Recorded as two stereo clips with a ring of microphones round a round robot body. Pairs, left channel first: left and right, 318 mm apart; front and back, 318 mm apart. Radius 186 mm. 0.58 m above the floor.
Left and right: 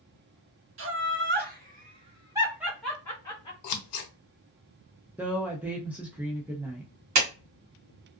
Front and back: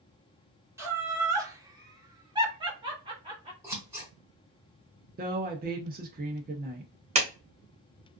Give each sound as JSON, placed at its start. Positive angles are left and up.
{"t": 0.8, "sound": "laughter", "azimuth_deg": -100, "distance_m": 1.6}
{"t": 3.6, "sound": "scissors", "azimuth_deg": 95, "distance_m": 0.8}
{"t": 5.2, "sound": "a woman speaking", "azimuth_deg": -170, "distance_m": 0.6}
{"t": 7.2, "sound": "a clap", "azimuth_deg": -110, "distance_m": 1.4}